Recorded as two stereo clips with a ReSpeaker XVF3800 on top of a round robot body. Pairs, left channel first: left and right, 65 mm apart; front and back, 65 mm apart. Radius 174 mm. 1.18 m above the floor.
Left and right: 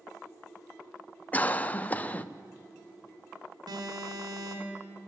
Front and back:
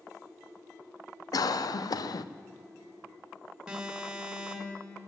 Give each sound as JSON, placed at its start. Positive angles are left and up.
{"t": 1.3, "sound": "a cough", "azimuth_deg": 20, "distance_m": 0.6}
{"t": 3.7, "sound": "an alarm", "azimuth_deg": -100, "distance_m": 2.5}